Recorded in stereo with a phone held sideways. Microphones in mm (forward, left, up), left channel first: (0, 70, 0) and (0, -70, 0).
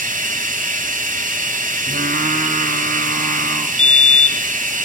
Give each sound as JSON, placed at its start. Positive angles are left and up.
{"t": 0.0, "sound": "running water", "side_deg": -65, "distance_m": 3.0}
{"t": 1.9, "sound": "singing", "side_deg": -75, "distance_m": 4.0}
{"t": 3.8, "sound": "a fire alarm", "side_deg": 45, "distance_m": 2.0}